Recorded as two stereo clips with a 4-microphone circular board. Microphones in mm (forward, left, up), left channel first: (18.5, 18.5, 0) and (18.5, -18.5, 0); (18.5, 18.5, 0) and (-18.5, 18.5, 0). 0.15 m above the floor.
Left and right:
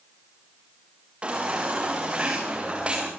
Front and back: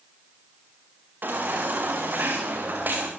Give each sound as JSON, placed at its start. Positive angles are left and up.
{"t": 1.2, "sound": "a baby crying", "azimuth_deg": -150, "distance_m": 7.5}